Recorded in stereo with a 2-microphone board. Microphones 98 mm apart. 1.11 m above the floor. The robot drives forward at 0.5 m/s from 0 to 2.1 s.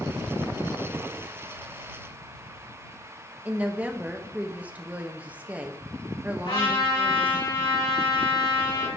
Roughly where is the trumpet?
Left.